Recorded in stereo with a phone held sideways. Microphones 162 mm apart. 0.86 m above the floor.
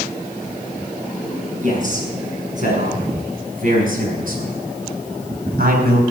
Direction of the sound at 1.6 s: 55° right (ahead or behind).